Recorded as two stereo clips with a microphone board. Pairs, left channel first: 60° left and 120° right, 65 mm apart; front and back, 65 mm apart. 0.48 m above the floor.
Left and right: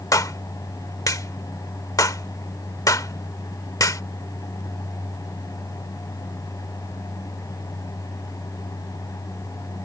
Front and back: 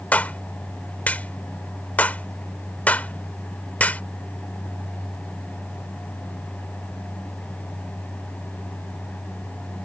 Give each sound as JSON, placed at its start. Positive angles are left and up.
{"t": 0.1, "sound": "a clap", "azimuth_deg": 60}